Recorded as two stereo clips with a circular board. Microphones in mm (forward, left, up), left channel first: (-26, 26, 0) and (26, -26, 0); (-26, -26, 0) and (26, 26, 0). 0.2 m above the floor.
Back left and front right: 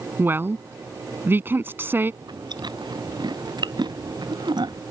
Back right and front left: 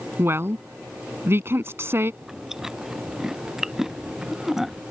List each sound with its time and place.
0.2 s a woman speaking: 5° left
2.2 s chewing: 40° right